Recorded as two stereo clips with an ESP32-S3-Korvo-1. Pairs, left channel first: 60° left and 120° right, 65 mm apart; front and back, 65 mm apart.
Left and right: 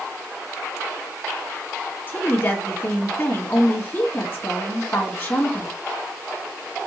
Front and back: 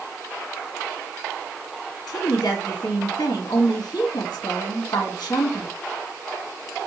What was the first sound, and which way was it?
A woman speaking, 15° left.